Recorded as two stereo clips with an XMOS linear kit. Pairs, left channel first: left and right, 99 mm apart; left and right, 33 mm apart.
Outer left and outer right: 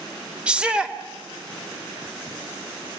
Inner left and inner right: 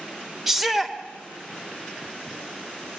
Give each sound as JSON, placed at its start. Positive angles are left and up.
{"t": 0.5, "sound": "a shout", "side_deg": -10, "distance_m": 2.0}